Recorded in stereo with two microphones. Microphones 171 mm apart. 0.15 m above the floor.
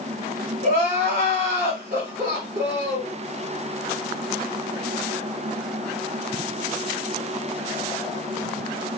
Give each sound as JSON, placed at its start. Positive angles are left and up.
{"t": 0.6, "sound": "crying", "side_deg": -45, "distance_m": 1.3}